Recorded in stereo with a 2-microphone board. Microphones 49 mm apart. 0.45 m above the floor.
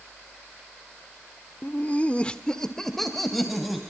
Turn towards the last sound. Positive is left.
turn(degrees=-5)  # may be behind; listen again after turning